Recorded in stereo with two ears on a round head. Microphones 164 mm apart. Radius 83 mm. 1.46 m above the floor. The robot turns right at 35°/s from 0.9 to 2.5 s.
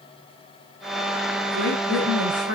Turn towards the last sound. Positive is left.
turn(degrees=-80)